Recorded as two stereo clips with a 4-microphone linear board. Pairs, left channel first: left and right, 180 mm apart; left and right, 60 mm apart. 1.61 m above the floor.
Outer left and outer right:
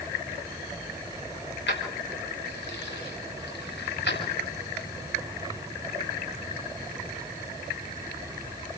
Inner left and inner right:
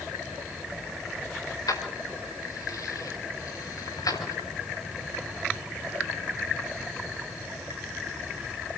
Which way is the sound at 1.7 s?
80° left.